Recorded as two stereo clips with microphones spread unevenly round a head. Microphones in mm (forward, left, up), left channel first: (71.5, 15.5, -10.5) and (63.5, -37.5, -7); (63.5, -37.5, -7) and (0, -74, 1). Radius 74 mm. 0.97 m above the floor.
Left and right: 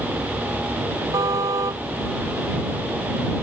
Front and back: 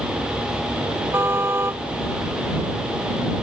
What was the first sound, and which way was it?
A car horn, 95° right.